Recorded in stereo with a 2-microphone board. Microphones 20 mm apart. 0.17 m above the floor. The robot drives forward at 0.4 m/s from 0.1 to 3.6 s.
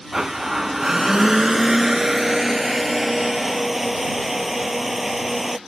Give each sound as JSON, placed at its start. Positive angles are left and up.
{"t": 0.1, "sound": "a blender", "side_deg": -40}